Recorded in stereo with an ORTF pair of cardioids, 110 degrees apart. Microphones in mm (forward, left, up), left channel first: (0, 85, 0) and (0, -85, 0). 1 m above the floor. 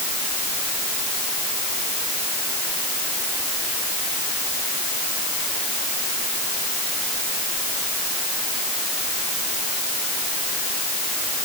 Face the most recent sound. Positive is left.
No sound to turn to.